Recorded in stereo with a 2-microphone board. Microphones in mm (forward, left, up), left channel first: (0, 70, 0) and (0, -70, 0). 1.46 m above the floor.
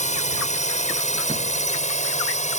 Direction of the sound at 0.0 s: 60° left (ahead or behind).